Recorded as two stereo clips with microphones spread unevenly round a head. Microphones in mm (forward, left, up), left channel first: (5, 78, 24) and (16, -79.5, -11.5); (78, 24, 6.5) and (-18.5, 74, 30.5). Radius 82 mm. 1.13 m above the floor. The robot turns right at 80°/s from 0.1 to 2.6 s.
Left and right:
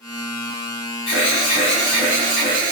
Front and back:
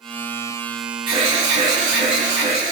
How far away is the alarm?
About 1.9 m.